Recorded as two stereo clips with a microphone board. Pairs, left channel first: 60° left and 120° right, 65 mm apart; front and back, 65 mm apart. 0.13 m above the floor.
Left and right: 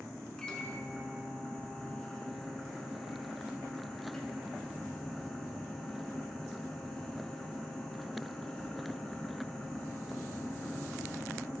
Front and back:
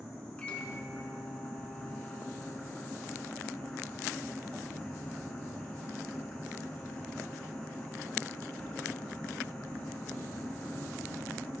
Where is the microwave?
10° left, 1.1 m.